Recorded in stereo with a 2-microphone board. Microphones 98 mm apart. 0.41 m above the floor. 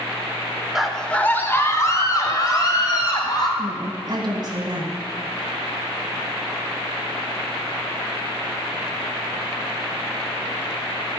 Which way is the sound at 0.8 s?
5° right (ahead or behind).